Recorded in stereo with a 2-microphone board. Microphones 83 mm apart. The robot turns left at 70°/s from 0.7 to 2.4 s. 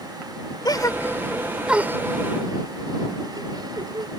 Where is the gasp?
55° left (ahead or behind); by 4.1 s 60° right (ahead or behind).